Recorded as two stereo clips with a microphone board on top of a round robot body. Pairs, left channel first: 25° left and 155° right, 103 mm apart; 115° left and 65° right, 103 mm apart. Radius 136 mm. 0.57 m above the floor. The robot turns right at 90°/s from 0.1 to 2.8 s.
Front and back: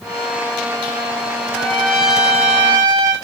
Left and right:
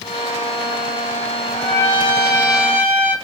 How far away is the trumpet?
About 5 m.